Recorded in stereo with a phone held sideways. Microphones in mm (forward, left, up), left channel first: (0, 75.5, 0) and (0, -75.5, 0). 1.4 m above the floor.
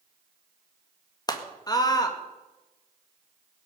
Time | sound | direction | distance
1.3 | a scream | 25° left (ahead or behind) | 2.0 m